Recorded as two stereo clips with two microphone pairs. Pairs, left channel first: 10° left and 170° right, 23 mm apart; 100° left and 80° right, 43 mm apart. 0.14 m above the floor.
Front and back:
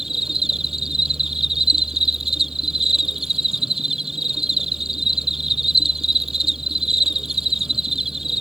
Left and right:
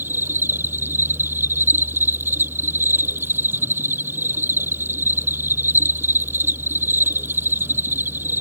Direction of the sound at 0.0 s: 100° right.